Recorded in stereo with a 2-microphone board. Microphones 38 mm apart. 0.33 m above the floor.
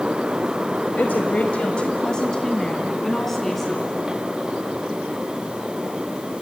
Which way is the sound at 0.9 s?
50° left (ahead or behind).